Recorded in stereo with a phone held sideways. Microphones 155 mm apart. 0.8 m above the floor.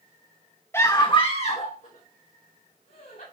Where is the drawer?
I don't hear a drawer.